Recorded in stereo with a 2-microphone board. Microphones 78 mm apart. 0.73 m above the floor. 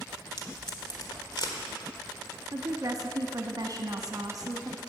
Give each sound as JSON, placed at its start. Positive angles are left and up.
{"t": 0.4, "sound": "tape being pulled", "side_deg": 65, "distance_m": 1.4}
{"t": 2.5, "sound": "a woman speaking", "side_deg": -50, "distance_m": 1.0}